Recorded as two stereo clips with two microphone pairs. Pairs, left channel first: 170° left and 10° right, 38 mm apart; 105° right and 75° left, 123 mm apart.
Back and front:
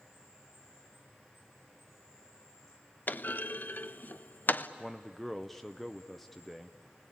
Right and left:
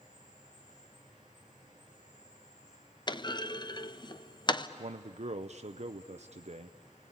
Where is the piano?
No piano in this recording.